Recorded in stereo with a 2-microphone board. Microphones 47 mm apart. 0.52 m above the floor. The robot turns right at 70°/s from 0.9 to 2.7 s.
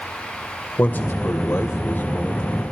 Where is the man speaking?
50° left, 2.5 m; by 2.6 s 170° left, 2.5 m.